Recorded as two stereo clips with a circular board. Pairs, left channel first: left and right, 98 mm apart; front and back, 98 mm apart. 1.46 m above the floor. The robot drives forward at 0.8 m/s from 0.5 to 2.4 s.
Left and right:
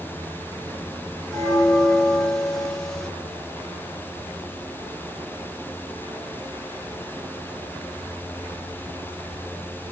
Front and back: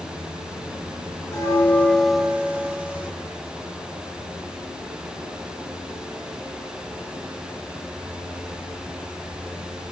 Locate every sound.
1.3 s a bell: 5° left, 1.1 m; by 3.1 s 170° left, 0.9 m